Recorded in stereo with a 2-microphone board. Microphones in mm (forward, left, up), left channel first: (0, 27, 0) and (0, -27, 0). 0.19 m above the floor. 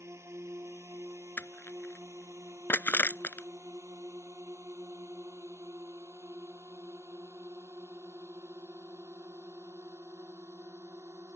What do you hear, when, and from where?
0.0 s a drone: 55° right (ahead or behind); by 11.3 s 65° right (ahead or behind)
1.4 s crushing: 40° left (ahead or behind)